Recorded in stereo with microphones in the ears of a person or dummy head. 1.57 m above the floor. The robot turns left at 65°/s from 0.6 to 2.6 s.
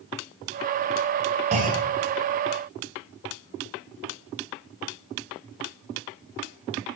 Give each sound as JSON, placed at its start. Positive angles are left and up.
{"t": 1.5, "sound": "a clunk", "side_deg": -40, "distance_m": 8.0}